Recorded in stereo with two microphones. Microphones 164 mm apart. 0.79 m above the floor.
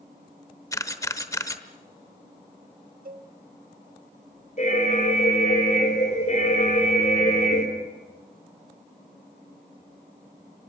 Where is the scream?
No scream in this recording.